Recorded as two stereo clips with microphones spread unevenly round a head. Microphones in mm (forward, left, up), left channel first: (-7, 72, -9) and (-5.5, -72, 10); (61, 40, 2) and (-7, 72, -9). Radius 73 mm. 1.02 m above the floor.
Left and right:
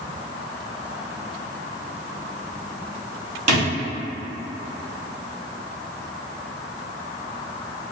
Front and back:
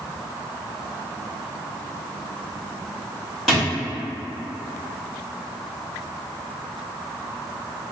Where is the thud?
110° right, 1.2 m.